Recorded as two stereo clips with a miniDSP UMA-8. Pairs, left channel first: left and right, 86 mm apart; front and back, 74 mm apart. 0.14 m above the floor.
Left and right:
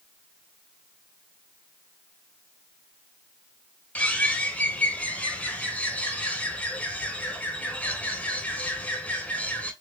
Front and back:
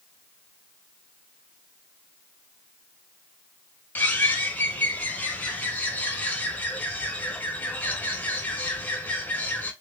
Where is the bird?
35° left, 0.7 m.